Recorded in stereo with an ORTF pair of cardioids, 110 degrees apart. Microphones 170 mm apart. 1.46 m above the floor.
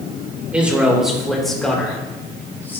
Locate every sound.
0.5 s a man speaking: 10° right, 3.5 m; by 2.8 s 15° left, 4 m